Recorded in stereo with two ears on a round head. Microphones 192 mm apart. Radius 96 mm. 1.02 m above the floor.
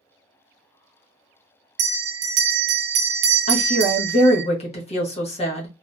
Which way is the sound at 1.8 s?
50° right (ahead or behind).